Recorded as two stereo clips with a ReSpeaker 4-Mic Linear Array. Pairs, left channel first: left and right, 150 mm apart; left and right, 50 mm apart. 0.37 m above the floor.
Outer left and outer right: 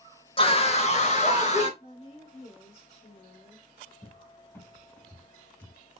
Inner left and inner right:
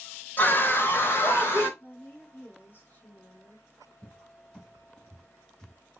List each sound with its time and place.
0.4 s a scream: 35° left (ahead or behind), 0.9 m; by 1.7 s 45° left (ahead or behind), 1.7 m
1.8 s a woman speaking: 40° left (ahead or behind), 1.9 m
4.0 s a cupboard door: 15° left (ahead or behind), 1.1 m